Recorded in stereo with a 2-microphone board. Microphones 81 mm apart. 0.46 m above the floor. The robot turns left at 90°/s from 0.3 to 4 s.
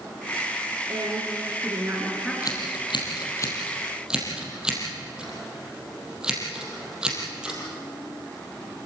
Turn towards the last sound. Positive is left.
turn(degrees=-10)  # may be behind; listen again after turning